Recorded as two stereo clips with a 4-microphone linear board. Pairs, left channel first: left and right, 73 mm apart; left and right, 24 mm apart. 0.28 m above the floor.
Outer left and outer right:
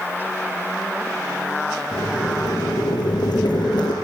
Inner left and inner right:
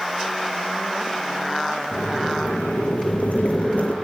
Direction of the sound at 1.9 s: 80° left.